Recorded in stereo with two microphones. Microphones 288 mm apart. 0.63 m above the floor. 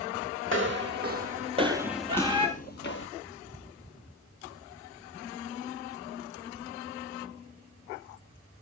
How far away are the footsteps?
About 1.2 m.